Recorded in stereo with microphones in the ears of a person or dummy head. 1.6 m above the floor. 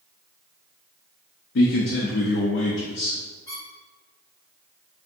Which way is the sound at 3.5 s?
25° left (ahead or behind).